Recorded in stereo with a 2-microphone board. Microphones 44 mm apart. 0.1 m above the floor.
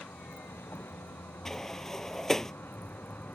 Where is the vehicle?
70° left (ahead or behind); by 3.4 s 50° left (ahead or behind).